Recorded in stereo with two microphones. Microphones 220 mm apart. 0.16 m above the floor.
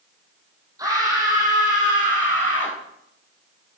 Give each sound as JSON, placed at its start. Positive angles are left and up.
{"t": 0.8, "sound": "a scream", "side_deg": -15, "distance_m": 4.5}